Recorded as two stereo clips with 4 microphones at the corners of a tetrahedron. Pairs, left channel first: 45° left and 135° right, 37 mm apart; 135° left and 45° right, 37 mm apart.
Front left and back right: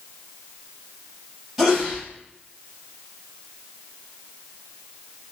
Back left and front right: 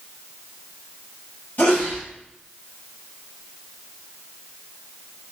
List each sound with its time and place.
1.6 s a sneeze: 140° left, 1.5 m